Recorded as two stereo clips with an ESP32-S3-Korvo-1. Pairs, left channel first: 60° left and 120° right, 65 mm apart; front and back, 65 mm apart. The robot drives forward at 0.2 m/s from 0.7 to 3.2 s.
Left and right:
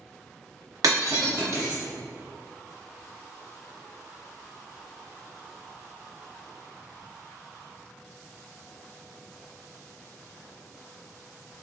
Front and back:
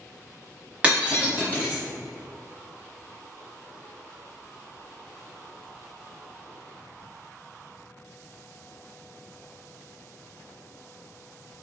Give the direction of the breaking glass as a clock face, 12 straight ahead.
4 o'clock.